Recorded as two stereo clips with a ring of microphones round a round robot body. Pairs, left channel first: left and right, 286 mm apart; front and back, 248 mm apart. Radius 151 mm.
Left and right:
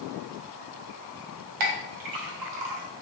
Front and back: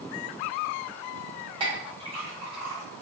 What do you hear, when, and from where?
1.6 s a clink: 105° right, 0.6 m